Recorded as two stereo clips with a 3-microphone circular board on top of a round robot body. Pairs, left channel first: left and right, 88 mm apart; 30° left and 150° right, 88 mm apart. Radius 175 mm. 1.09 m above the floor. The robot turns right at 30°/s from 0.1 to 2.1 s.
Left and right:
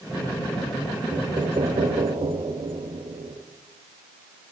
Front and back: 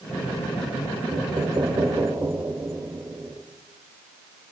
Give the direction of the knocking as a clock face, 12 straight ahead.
4 o'clock.